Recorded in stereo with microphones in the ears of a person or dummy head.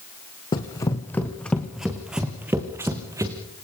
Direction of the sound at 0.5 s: 25° left (ahead or behind).